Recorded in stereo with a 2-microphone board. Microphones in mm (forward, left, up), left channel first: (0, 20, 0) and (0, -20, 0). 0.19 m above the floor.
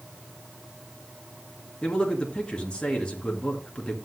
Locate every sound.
1.8 s a man speaking: 25° left (ahead or behind), 2.5 m